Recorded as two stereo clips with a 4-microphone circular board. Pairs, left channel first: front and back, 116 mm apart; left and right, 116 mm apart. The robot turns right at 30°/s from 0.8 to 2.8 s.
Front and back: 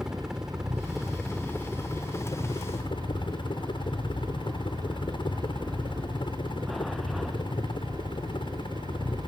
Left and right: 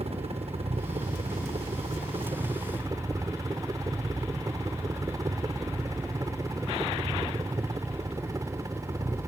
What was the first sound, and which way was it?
A helicopter, 95° right.